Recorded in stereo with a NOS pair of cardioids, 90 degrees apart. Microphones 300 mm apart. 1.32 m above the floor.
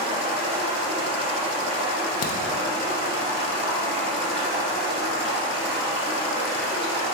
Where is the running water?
20° right, 0.9 m.